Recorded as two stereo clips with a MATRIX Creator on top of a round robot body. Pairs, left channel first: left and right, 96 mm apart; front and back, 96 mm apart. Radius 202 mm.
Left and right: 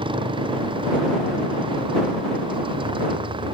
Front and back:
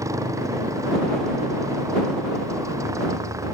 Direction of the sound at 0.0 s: 120° right.